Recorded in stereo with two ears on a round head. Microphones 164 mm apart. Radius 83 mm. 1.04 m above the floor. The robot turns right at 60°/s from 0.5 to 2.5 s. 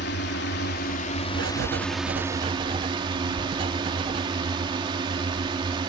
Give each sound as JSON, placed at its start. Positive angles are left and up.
{"t": 0.0, "sound": "a drone", "azimuth_deg": 95}
{"t": 1.3, "sound": "writing", "azimuth_deg": -100}
{"t": 3.4, "sound": "a thud", "side_deg": -5}